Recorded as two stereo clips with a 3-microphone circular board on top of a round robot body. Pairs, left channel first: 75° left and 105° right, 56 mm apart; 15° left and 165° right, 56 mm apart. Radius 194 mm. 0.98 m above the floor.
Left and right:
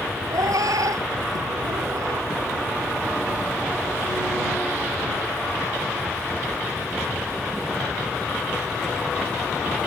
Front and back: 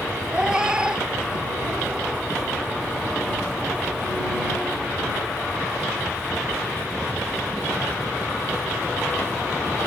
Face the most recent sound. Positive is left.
turn(degrees=-90)